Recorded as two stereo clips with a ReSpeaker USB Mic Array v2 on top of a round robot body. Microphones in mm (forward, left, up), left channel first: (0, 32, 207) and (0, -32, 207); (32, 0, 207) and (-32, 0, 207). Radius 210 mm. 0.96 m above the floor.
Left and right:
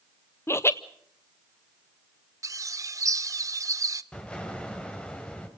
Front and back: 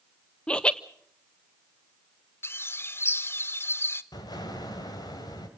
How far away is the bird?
About 0.8 m.